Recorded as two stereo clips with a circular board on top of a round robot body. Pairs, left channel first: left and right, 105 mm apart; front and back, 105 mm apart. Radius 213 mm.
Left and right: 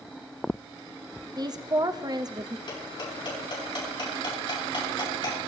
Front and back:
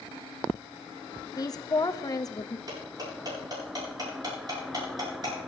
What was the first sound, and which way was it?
A woman speaking, 45° right.